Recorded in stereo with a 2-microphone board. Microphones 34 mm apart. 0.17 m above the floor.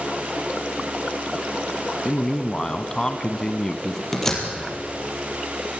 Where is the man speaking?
20° left (ahead or behind), 1.2 m.